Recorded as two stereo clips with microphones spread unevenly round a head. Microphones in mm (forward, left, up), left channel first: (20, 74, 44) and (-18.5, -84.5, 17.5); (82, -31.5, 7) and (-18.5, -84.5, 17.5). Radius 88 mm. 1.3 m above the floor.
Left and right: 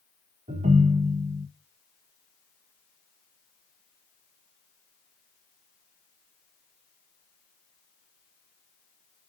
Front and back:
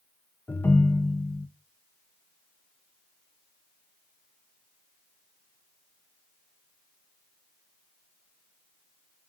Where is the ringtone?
45° right, 0.6 m.